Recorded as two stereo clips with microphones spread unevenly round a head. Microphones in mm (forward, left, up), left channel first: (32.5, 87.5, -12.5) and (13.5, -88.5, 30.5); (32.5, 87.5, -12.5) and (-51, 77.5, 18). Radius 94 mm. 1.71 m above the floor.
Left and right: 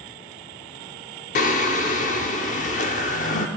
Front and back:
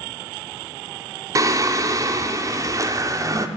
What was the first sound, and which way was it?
Singing, 140° left.